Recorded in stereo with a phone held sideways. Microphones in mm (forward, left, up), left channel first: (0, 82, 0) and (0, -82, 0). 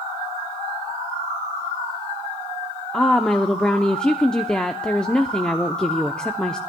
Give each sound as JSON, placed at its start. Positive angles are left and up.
{"t": 2.9, "sound": "a woman speaking", "side_deg": 5, "distance_m": 0.6}